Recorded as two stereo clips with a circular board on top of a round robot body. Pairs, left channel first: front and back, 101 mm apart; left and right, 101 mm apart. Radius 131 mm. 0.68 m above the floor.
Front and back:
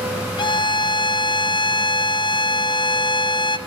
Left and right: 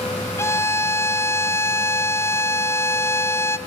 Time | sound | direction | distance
0.4 | a violin | 30° left | 1.1 m